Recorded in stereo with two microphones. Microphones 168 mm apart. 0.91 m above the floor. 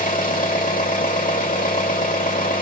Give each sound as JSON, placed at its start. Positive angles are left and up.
{"t": 0.0, "sound": "an engine running", "side_deg": 55, "distance_m": 1.2}